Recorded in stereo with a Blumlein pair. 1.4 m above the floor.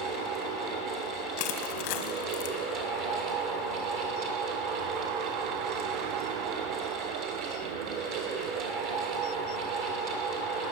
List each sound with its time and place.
0.0 s a fan: 40° right, 2 m
1.4 s crushing: 45° left, 1.2 m